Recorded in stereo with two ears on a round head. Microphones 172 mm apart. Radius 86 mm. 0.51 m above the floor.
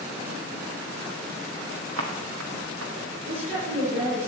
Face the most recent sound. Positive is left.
turn(degrees=-35)  # may be behind; listen again after turning